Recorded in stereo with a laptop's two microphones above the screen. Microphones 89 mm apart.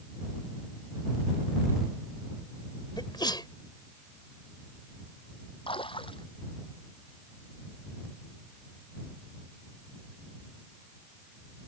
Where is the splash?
80° left.